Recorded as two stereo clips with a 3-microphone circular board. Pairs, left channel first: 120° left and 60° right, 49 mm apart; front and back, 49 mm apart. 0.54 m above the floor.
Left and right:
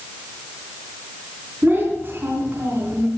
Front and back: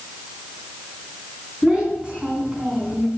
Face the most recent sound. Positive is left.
turn(degrees=-110)